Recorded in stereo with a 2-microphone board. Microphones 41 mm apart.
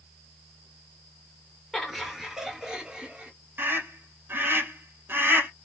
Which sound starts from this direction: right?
A scream, at 3.6 s.